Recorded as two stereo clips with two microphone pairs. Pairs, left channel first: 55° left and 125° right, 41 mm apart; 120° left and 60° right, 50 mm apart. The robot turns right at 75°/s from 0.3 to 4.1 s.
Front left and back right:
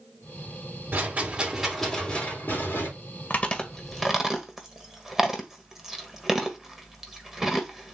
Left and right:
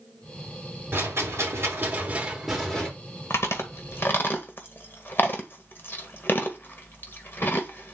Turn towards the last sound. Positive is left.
turn(degrees=155)